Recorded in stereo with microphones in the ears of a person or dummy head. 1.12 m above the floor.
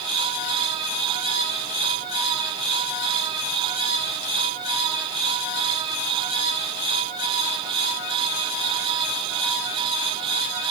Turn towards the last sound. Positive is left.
No sound to turn to.